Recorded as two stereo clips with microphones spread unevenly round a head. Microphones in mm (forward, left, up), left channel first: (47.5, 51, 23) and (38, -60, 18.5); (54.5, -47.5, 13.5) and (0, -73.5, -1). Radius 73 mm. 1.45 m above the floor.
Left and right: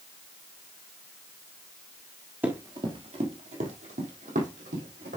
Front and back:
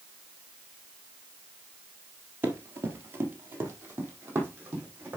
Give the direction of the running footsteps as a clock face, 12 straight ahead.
5 o'clock.